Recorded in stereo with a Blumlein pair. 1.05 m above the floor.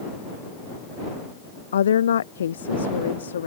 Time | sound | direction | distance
1.7 | a woman speaking | 65° left | ?